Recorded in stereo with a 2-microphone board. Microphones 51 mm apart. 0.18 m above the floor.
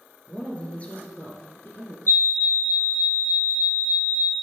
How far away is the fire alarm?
About 4 m.